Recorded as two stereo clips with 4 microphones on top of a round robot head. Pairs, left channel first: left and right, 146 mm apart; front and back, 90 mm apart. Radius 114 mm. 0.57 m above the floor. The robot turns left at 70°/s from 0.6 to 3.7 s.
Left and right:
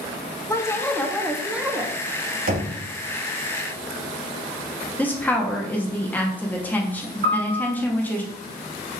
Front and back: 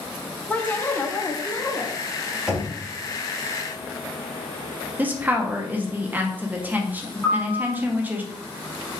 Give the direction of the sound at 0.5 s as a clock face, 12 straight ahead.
10 o'clock.